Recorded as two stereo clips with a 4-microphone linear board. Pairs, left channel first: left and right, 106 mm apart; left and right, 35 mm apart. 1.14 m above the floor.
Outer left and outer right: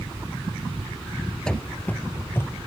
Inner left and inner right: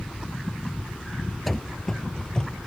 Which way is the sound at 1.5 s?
5° left (ahead or behind).